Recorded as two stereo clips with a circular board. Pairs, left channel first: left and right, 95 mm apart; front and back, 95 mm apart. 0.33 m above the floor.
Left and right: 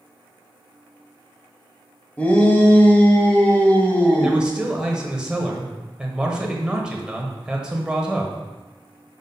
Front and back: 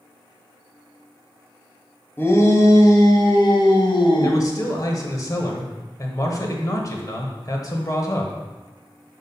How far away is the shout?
About 1.1 m.